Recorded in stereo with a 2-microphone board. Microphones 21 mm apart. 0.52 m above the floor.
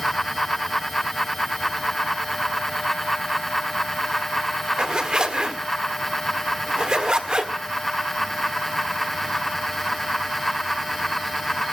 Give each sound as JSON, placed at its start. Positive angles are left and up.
{"t": 4.8, "sound": "a zipper", "side_deg": -45, "distance_m": 1.7}